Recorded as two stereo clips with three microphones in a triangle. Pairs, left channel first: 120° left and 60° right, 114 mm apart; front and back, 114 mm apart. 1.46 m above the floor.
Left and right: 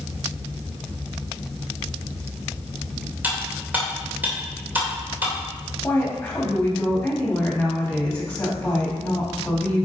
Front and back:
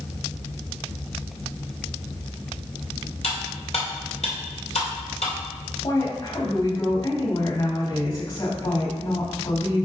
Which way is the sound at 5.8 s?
40° left.